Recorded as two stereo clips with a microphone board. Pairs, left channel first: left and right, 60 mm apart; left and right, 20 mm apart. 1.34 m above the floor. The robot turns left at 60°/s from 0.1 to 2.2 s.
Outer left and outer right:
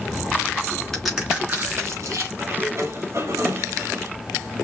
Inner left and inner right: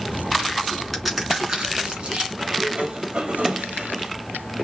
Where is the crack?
Centre (ahead or behind), 3 m; by 2.3 s 75° right (ahead or behind), 3 m.